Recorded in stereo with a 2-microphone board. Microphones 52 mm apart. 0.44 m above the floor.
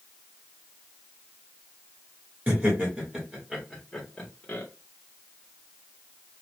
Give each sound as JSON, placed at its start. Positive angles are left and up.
{"t": 2.5, "sound": "laughter", "side_deg": -30, "distance_m": 2.0}